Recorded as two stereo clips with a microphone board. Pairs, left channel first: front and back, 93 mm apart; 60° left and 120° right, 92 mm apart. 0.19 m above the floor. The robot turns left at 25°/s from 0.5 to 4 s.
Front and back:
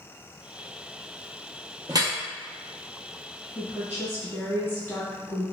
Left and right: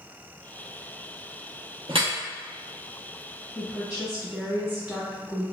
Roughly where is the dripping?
Behind right.